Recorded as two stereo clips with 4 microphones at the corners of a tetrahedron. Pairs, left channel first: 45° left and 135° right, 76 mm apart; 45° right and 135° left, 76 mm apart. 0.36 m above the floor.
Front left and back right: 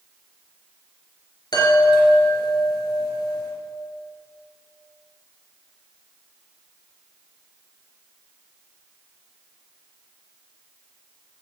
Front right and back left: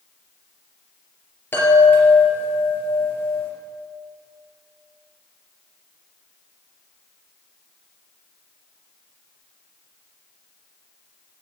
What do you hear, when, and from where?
1.5 s a chime: 20° left, 3.5 m